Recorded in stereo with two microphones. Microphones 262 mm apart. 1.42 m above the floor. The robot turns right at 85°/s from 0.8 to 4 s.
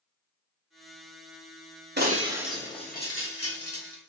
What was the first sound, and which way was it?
Breaking glass, 40° right (ahead or behind).